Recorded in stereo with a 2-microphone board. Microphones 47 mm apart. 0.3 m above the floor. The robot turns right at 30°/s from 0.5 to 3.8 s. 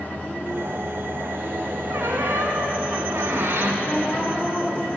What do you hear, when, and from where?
1.9 s a squeak: 110° right, 0.9 m; by 3.7 s 55° right, 0.9 m
3.8 s a woman speaking: 30° left (ahead or behind), 1.3 m